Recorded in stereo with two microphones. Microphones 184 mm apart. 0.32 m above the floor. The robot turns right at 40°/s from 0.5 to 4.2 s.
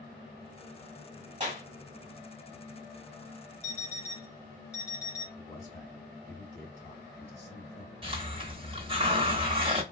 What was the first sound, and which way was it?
A clap, 35° right (ahead or behind).